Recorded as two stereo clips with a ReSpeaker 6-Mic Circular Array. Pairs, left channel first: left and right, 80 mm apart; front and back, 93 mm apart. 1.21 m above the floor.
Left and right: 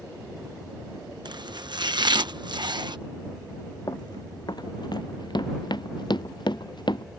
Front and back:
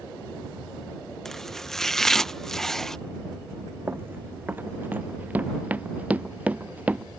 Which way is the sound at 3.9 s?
115° left.